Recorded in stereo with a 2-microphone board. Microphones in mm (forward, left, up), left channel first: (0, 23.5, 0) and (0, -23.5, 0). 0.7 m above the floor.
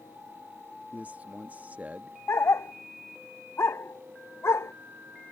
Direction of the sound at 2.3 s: 75° left (ahead or behind).